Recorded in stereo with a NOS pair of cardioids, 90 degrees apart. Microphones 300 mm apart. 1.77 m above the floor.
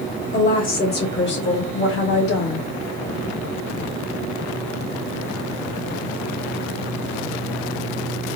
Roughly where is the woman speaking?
Ahead left.